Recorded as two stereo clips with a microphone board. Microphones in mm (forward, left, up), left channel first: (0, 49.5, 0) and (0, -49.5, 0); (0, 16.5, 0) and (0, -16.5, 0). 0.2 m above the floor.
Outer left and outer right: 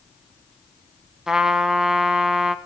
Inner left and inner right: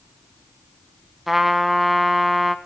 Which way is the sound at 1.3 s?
5° right (ahead or behind).